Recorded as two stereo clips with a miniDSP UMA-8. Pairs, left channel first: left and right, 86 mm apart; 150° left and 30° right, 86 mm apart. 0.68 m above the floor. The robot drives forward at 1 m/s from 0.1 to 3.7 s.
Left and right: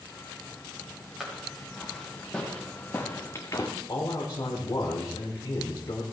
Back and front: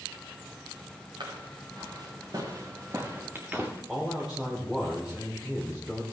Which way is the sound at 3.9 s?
55° left.